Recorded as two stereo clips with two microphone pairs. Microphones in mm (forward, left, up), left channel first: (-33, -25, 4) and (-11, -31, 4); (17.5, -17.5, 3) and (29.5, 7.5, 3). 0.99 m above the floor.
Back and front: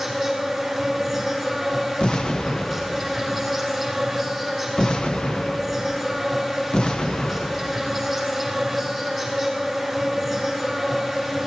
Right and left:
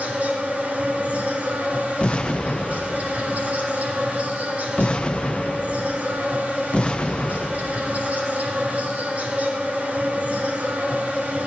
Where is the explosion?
155° right, 0.9 m.